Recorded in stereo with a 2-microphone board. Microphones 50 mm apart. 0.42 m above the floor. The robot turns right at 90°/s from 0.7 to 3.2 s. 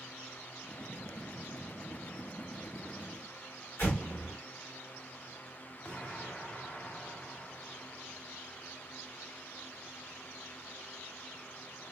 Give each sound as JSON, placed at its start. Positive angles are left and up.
{"t": 3.8, "sound": "an explosion", "side_deg": 55, "distance_m": 2.5}
{"t": 5.8, "sound": "an explosion", "side_deg": 30, "distance_m": 0.8}